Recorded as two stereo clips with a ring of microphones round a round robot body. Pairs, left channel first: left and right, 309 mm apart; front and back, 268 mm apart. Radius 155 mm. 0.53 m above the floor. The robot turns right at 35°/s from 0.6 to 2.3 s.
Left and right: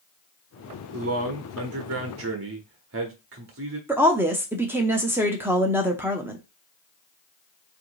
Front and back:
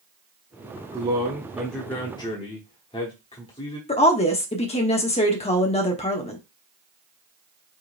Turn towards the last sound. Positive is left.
turn(degrees=-15)